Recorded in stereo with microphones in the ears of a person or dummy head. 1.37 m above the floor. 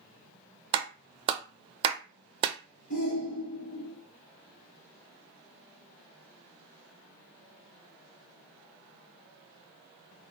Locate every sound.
0.7 s a clap: 35° right (ahead or behind), 0.6 m
2.9 s a shout: 60° left (ahead or behind), 2.5 m